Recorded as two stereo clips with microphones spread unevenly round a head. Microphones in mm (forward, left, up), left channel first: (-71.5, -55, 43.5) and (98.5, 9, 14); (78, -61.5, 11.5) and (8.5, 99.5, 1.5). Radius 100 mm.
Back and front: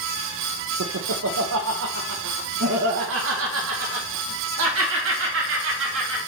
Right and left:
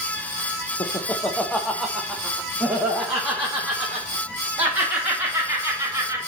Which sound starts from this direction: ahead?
Laughter, at 0.8 s.